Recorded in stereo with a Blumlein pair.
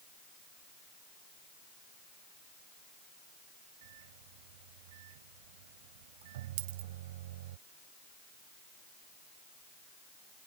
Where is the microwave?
55° right.